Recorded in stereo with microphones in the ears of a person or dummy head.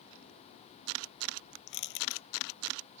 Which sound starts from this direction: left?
Crushing, at 1.7 s.